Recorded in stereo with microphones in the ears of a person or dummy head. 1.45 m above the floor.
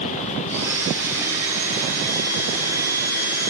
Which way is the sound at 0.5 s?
15° right (ahead or behind).